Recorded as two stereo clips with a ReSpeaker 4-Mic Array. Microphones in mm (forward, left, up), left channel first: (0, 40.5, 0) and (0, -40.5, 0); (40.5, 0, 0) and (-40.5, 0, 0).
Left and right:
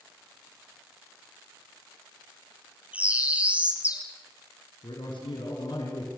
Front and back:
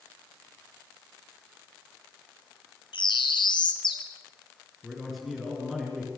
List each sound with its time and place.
2.9 s a bird: 15° right, 2.5 m
4.8 s a man speaking: 90° left, 4.5 m